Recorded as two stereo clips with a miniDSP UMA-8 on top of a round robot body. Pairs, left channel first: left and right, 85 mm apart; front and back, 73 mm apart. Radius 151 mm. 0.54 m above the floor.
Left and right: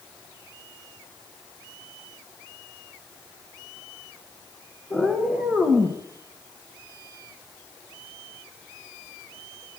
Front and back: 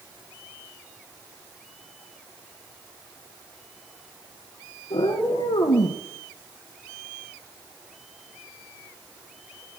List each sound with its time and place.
4.9 s a cat meowing: straight ahead, 1.7 m; by 6.0 s 15° right, 2 m